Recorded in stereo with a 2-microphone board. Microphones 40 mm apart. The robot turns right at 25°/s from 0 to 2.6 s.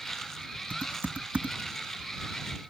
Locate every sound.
0.7 s typing on a keyboard: 50° right (ahead or behind); by 2.6 s 5° right (ahead or behind)